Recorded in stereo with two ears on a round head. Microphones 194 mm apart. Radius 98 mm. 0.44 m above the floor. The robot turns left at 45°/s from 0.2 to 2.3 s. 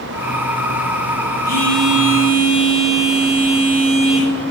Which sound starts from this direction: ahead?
A phone buzzing, at 1.4 s.